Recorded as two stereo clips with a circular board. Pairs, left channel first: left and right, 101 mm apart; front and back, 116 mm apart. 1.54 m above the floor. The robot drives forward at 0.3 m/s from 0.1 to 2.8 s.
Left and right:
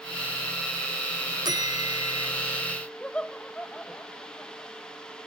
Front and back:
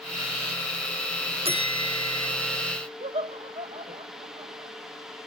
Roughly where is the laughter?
Behind.